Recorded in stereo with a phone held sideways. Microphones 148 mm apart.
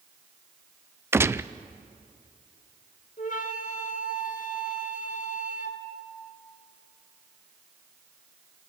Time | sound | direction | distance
1.1 | a gunshot | 15° right (ahead or behind) | 0.5 m
3.2 | a flute | 60° left (ahead or behind) | 1.9 m